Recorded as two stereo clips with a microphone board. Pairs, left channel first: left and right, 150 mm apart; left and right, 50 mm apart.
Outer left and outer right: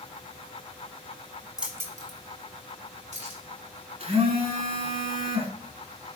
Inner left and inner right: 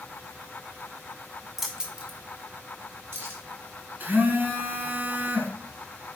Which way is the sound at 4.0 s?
45° right (ahead or behind).